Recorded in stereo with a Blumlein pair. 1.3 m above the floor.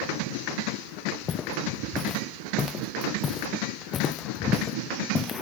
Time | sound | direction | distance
1.1 | footsteps | 25° left | ?